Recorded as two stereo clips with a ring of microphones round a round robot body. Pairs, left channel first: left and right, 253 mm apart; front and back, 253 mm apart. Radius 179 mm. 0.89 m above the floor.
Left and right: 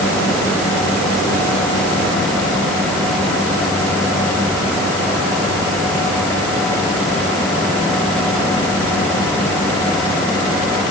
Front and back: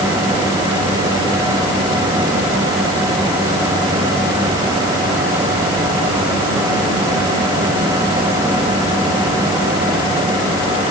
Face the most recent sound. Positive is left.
No sound to turn to.